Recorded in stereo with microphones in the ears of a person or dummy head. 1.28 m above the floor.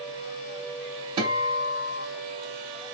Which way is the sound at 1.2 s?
25° right (ahead or behind).